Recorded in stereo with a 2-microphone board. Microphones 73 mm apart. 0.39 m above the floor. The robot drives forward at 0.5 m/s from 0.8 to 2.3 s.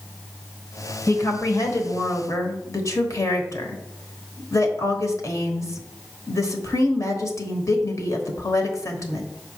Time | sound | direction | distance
1.1 | a woman speaking | 50° left (ahead or behind) | 1.2 m